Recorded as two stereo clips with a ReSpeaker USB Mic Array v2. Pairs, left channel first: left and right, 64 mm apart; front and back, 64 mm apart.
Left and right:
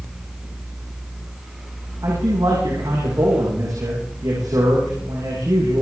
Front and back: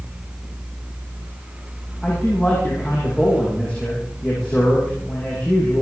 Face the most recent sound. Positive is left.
turn(degrees=-70)